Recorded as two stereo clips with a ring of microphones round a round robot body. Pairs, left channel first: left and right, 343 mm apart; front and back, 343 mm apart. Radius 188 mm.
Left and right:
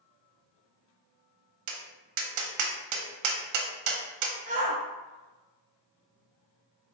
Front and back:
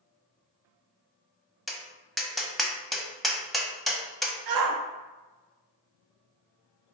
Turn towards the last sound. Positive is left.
turn(degrees=-160)